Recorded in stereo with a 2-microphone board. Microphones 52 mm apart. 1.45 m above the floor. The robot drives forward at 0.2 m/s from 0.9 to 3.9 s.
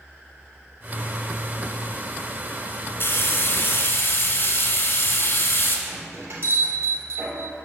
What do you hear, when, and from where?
3.0 s frying: 45° left (ahead or behind), 1.8 m
5.9 s a bell: 60° right (ahead or behind), 2.5 m